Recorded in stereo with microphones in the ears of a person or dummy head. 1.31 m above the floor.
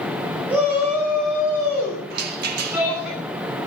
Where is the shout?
5° right (ahead or behind), 5.5 m.